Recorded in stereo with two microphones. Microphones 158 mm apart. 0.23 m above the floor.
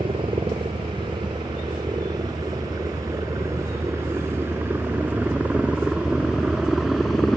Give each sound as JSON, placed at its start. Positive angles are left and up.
{"t": 0.0, "sound": "a helicopter", "side_deg": -35}